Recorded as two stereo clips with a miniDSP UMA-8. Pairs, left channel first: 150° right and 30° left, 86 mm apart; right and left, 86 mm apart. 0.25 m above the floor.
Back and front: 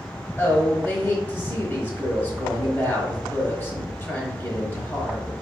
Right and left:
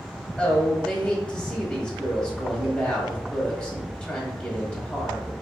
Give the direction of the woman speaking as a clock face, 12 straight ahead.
5 o'clock.